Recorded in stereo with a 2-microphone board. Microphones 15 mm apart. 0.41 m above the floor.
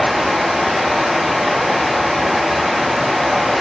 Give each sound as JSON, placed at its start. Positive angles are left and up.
{"t": 0.0, "sound": "running water", "side_deg": -80, "distance_m": 7.5}